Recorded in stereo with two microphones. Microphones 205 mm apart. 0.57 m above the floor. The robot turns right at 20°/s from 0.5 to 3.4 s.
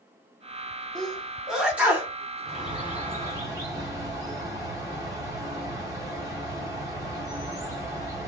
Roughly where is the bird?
Centre.